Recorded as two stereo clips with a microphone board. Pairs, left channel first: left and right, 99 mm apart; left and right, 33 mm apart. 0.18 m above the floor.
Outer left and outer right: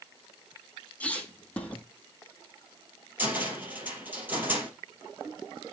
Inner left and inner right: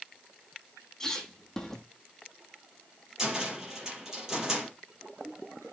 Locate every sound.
1.0 s a squeak: 15° left (ahead or behind), 1.8 m
3.2 s a cupboard door: 15° right (ahead or behind), 4 m